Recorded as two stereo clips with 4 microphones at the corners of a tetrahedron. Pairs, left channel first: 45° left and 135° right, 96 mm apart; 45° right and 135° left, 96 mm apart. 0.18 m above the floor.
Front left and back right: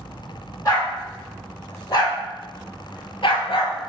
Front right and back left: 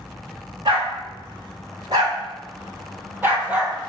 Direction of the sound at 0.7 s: 100° left.